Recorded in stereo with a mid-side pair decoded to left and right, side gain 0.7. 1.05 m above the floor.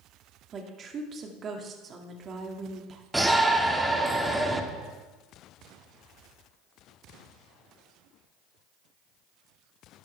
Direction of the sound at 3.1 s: 5° right.